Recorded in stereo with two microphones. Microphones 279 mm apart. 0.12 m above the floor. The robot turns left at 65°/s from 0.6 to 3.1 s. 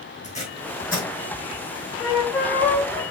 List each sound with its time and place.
0.2 s tape being pulled: 25° left (ahead or behind), 2.5 m; by 1.1 s 55° left (ahead or behind), 2.5 m
2.0 s a flute: 10° left (ahead or behind), 1.6 m; by 3.0 s 15° right (ahead or behind), 1.6 m